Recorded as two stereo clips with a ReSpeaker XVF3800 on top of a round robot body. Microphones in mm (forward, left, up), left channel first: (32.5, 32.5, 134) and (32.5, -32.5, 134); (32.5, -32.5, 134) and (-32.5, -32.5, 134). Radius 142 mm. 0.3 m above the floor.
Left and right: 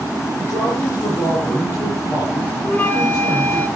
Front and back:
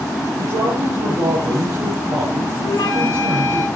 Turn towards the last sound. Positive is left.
turn(degrees=30)